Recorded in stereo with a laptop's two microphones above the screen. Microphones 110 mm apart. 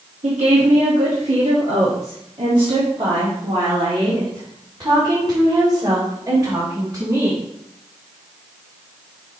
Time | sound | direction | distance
0.2 | a woman speaking | 75° right (ahead or behind) | 1.7 m